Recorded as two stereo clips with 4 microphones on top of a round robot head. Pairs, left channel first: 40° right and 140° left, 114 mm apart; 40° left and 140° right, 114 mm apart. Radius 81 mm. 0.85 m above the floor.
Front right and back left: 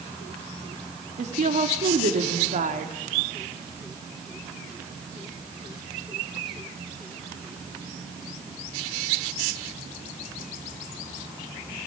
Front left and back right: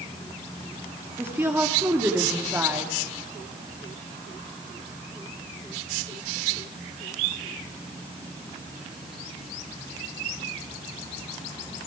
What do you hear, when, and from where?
1.2 s a woman speaking: 150° left, 2.5 m